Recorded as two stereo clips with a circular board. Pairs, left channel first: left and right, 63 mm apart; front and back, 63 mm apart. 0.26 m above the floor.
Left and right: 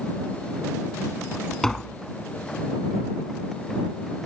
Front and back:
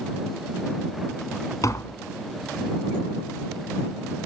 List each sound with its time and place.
1.6 s tapping: 10° left